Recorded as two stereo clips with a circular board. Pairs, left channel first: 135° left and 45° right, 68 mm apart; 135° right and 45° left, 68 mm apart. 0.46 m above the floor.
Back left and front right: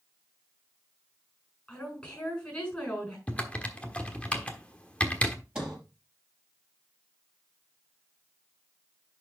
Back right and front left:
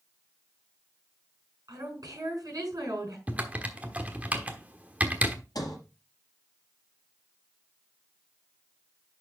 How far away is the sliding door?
About 4 m.